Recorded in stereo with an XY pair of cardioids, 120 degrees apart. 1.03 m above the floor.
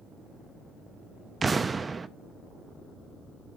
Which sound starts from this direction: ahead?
An explosion, at 1.4 s.